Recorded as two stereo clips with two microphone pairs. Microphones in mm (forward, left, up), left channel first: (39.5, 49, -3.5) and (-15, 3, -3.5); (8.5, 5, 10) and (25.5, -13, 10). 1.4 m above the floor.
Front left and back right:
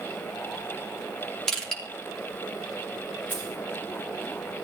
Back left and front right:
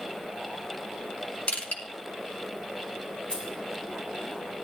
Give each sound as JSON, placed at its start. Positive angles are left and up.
{"t": 1.5, "sound": "crushing", "azimuth_deg": 125, "distance_m": 3.0}
{"t": 3.3, "sound": "keys jangling", "azimuth_deg": 100, "distance_m": 9.5}